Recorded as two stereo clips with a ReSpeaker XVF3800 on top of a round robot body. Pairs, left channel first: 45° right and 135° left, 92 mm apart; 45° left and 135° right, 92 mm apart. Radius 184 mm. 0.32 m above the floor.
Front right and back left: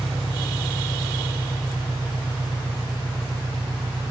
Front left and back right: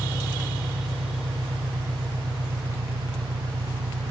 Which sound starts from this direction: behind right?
An engine running, at 0.0 s.